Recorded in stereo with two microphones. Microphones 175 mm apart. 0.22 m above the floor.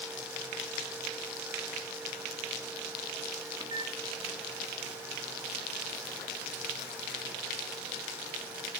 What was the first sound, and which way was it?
A microwave, 25° right (ahead or behind).